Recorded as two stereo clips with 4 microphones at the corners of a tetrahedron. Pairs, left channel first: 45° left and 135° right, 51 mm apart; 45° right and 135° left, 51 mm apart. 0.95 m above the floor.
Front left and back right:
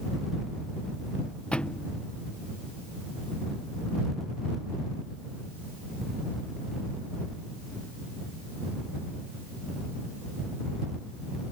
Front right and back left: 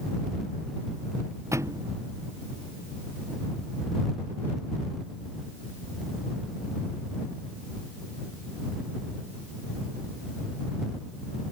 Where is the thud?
115° left.